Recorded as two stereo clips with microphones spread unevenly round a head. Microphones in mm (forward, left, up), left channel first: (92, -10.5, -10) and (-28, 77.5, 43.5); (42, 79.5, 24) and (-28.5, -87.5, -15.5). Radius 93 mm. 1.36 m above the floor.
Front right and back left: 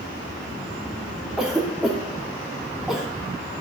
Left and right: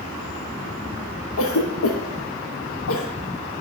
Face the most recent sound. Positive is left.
turn(degrees=50)